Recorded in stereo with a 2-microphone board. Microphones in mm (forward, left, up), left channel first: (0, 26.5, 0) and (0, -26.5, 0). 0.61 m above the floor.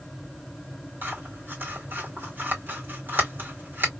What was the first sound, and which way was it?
Scissors, 45° right (ahead or behind).